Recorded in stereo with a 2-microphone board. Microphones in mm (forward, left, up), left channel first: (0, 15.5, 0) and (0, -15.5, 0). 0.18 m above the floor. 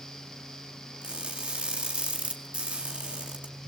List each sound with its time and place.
1.0 s crushing: 45° right (ahead or behind), 2.5 m